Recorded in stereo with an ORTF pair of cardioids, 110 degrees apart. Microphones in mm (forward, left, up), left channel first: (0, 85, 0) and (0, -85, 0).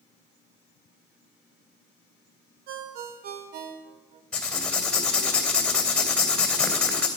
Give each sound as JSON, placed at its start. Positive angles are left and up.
{"t": 2.7, "sound": "a ringtone", "azimuth_deg": -65, "distance_m": 0.9}
{"t": 4.3, "sound": "writing", "azimuth_deg": 5, "distance_m": 2.5}